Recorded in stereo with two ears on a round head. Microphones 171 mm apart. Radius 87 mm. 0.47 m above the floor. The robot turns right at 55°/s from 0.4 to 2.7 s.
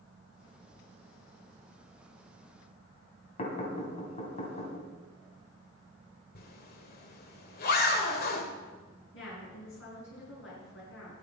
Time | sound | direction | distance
3.4 | knocking | 30° left (ahead or behind) | 3 m
6.3 | a zipper | 50° left (ahead or behind) | 1.7 m
9.1 | a woman speaking | 75° left (ahead or behind) | 5.5 m